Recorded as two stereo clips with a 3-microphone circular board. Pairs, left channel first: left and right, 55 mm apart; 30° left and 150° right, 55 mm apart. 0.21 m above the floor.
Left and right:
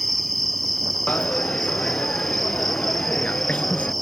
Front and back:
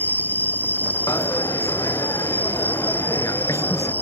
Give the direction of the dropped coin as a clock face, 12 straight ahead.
11 o'clock.